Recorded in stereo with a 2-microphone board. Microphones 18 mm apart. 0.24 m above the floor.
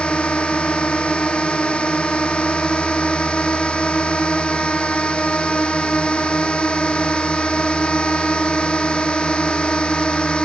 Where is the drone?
85° left; by 10.5 s 65° left (ahead or behind).